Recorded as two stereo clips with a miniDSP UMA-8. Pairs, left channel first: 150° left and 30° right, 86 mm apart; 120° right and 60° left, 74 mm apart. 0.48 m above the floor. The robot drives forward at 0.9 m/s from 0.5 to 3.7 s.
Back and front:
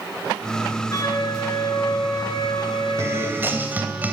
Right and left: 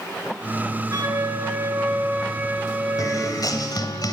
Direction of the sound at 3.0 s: 85° right.